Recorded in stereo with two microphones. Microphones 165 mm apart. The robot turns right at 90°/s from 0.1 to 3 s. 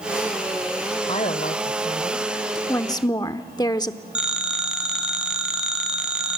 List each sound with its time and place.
1.1 s a woman speaking: 45° left, 1.3 m; by 2.6 s straight behind, 1.3 m
2.7 s a woman speaking: 15° left (ahead or behind), 0.8 m; by 4.0 s 25° left (ahead or behind), 0.8 m
4.2 s a phone ringing: 5° right (ahead or behind), 3 m